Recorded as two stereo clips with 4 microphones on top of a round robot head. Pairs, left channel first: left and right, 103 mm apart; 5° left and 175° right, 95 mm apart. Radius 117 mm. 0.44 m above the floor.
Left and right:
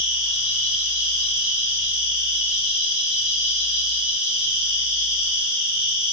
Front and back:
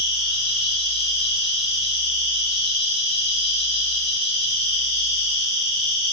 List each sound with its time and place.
0.0 s an insect: 10° right, 2.5 m